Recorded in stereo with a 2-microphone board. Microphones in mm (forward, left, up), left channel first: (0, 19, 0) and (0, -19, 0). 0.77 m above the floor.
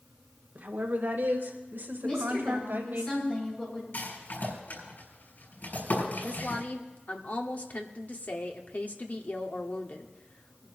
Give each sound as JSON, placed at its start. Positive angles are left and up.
{"t": 0.6, "sound": "a woman speaking", "side_deg": -55, "distance_m": 1.8}
{"t": 2.0, "sound": "a woman speaking", "side_deg": 20, "distance_m": 7.5}
{"t": 3.9, "sound": "a rattle", "side_deg": 60, "distance_m": 6.5}
{"t": 6.2, "sound": "a woman speaking", "side_deg": 45, "distance_m": 1.4}